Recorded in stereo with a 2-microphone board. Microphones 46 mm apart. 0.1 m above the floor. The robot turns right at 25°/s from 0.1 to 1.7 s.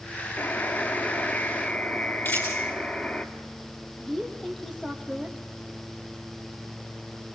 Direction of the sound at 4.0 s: 5° left (ahead or behind).